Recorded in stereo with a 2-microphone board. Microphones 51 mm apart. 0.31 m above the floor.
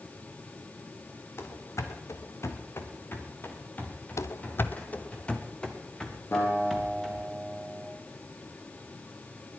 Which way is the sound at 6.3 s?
55° left (ahead or behind).